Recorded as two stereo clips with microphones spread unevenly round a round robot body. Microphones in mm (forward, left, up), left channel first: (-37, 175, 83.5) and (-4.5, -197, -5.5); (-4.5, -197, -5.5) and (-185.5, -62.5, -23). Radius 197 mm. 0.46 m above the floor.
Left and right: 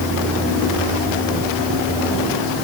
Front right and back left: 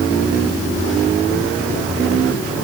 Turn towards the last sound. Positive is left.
No sound to turn to.